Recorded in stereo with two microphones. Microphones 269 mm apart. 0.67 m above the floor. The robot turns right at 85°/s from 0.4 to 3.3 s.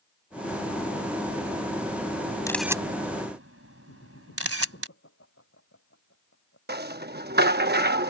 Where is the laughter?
55° left (ahead or behind).